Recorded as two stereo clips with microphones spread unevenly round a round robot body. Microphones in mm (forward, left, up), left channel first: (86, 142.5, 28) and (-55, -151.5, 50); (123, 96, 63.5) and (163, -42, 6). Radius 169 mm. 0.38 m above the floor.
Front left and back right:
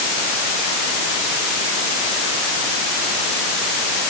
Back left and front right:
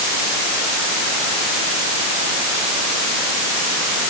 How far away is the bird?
I don't hear a bird.